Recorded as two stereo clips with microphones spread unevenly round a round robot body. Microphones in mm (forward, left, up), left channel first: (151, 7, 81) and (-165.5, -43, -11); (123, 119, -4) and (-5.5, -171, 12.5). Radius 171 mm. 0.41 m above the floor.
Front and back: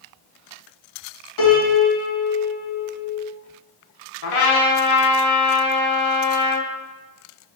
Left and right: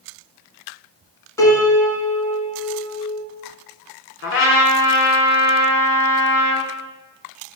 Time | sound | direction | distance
1.4 | a piano | 15° right | 1.4 m
4.2 | a trumpet | 15° left | 1.0 m